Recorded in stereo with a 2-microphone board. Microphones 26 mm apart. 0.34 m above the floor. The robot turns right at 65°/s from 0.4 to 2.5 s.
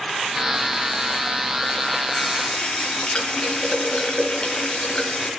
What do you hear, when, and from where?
2.1 s a running tap: 15° left (ahead or behind), 3 m; by 5.3 s 40° left (ahead or behind), 3 m